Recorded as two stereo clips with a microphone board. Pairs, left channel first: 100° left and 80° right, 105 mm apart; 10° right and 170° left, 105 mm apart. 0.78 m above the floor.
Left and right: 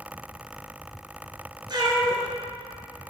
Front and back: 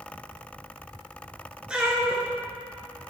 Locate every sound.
1.7 s a cat meowing: 110° right, 1.1 m